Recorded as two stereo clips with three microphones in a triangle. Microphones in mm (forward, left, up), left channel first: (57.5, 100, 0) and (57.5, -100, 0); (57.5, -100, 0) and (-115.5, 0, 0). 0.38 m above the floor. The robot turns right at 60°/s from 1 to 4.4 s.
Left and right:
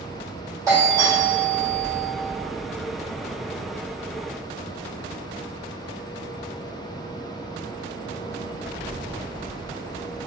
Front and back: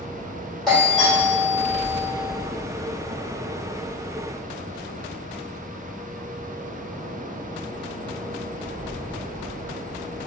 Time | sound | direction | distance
0.7 | a doorbell | 115° right | 1.8 m